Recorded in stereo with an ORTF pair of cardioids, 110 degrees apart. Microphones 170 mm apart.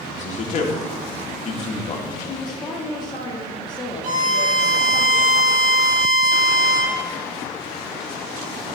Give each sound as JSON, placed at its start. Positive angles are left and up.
{"t": 0.1, "sound": "a man speaking", "azimuth_deg": 45, "distance_m": 1.9}
{"t": 2.2, "sound": "a woman speaking", "azimuth_deg": 25, "distance_m": 2.0}
{"t": 4.0, "sound": "a violin", "azimuth_deg": -55, "distance_m": 4.0}